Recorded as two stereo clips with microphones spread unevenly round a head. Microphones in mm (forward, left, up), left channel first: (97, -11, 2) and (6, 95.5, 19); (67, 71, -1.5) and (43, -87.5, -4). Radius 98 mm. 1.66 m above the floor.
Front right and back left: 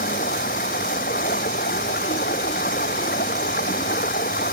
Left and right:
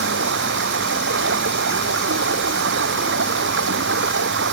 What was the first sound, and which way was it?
Running water, 100° right.